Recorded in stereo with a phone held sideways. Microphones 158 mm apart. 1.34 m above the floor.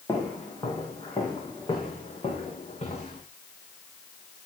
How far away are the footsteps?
About 5 m.